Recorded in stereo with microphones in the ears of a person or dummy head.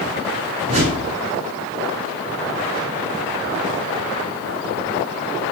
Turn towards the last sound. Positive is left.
turn(degrees=-40)  # may be behind; listen again after turning